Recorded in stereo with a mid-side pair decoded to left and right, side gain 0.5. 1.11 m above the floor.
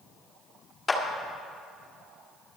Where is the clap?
30° left, 2 m.